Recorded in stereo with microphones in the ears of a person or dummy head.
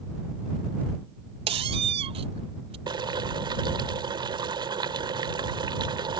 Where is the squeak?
25° right (ahead or behind).